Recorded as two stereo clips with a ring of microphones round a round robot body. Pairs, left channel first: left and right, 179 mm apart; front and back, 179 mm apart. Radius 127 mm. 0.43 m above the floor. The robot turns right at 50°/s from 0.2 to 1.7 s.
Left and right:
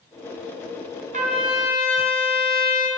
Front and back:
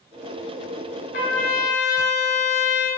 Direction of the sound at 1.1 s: 45° right.